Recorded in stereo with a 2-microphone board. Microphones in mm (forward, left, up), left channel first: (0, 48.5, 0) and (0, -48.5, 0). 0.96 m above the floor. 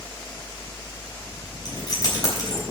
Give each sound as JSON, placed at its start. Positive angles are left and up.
{"t": 1.6, "sound": "keys jangling", "side_deg": 45, "distance_m": 4.0}